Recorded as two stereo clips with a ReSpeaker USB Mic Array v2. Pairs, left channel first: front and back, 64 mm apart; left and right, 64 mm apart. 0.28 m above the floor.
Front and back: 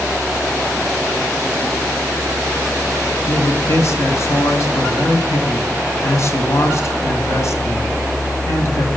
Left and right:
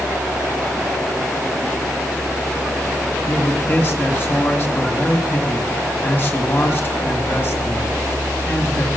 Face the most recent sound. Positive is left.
turn(degrees=40)